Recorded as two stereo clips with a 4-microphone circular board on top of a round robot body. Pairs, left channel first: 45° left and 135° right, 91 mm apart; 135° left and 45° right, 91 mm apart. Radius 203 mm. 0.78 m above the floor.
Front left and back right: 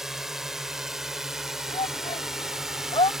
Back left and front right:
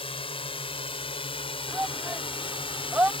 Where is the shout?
25° left.